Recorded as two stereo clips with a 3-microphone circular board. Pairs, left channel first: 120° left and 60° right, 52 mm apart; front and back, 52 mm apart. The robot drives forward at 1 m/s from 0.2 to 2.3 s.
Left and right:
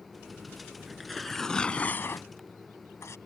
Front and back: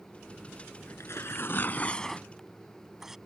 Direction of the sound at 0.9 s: 25° left.